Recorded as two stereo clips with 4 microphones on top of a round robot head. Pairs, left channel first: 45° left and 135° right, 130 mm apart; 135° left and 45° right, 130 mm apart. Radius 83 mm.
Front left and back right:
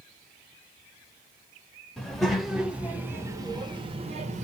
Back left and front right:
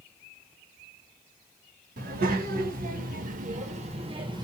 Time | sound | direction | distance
2.0 | a child speaking | 45° right | 1.6 m